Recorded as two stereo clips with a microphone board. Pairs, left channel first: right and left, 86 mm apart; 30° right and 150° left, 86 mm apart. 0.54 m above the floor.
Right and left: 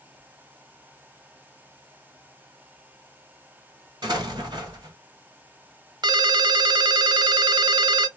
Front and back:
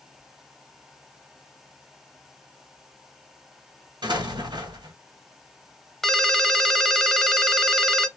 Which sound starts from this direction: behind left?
An explosion, at 4.0 s.